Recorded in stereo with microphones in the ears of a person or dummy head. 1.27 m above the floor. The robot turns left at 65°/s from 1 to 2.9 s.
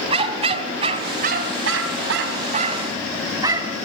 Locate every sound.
0.1 s a dog barking: 30° right (ahead or behind), 3 m; by 3.8 s 25° right (ahead or behind), 3 m